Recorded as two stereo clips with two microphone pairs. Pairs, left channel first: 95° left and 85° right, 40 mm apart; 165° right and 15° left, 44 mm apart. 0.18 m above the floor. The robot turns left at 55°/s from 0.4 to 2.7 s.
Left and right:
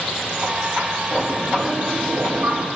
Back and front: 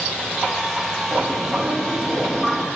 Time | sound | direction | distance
1.1 | a bird | 5° left | 4.5 m